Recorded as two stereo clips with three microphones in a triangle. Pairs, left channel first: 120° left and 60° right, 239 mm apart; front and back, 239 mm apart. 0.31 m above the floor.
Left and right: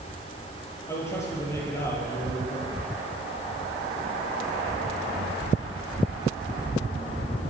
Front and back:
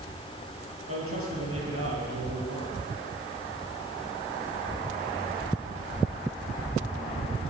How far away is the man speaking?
About 8.5 m.